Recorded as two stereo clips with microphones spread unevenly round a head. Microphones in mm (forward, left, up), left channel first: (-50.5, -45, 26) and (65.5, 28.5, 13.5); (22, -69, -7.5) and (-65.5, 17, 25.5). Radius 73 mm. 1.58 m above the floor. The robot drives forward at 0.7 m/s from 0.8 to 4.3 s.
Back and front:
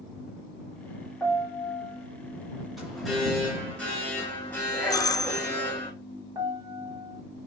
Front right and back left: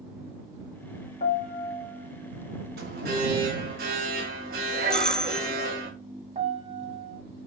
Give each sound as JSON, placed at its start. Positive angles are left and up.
{"t": 1.2, "sound": "a piano", "azimuth_deg": -60, "distance_m": 3.0}
{"t": 2.8, "sound": "an alarm", "azimuth_deg": 120, "distance_m": 3.5}
{"t": 4.9, "sound": "a doorbell", "azimuth_deg": -100, "distance_m": 0.7}
{"t": 6.3, "sound": "a piano", "azimuth_deg": 100, "distance_m": 1.4}